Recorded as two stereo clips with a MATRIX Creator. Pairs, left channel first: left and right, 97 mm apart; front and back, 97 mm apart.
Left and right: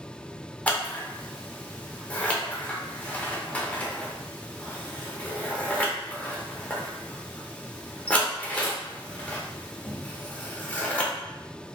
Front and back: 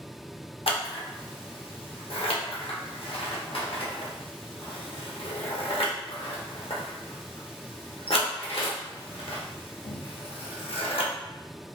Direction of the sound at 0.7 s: 15° left.